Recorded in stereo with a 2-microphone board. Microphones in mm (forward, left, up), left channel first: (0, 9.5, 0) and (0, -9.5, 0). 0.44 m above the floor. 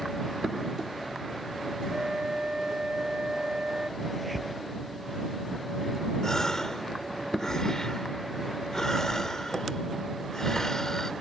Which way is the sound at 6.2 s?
35° left (ahead or behind).